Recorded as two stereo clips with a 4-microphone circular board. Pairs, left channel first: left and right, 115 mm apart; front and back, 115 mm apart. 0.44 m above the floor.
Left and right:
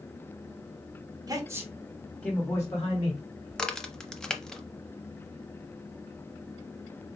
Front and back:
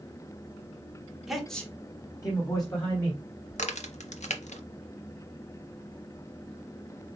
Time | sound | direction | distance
1.3 | a man speaking | 95° right | 1.1 m
3.5 | a crack | 5° left | 0.6 m